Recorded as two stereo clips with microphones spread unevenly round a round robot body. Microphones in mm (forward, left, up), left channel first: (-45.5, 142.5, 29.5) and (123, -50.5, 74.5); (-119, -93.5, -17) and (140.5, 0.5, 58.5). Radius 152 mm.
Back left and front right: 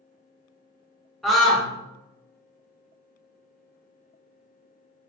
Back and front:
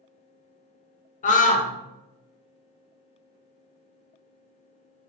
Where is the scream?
150° right, 0.7 m.